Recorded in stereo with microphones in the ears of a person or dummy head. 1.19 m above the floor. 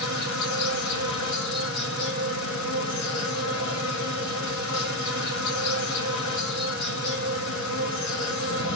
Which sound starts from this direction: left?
An insect, at 0.0 s.